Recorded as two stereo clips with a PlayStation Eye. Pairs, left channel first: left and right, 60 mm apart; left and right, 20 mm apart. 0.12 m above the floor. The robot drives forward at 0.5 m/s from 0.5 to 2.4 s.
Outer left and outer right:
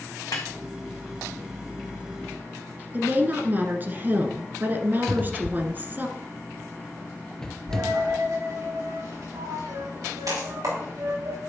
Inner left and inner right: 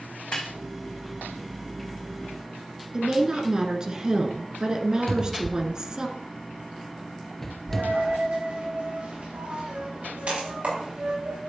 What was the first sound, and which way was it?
A snare drum, 75° left (ahead or behind).